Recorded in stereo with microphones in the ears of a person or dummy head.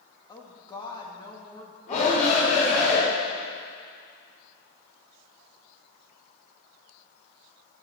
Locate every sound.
0.3 s a woman speaking: 20° left (ahead or behind), 2 m
1.9 s a shout: 40° left (ahead or behind), 5 m